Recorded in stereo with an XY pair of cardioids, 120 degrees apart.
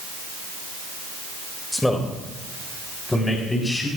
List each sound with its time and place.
1.7 s a man speaking: 10° left, 2 m; by 3.9 s 15° left, 4.5 m